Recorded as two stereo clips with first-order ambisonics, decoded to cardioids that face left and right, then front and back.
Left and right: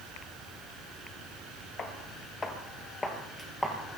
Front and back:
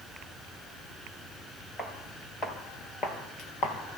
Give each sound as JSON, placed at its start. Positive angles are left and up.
{"t": 1.8, "sound": "footsteps", "azimuth_deg": 65, "distance_m": 1.4}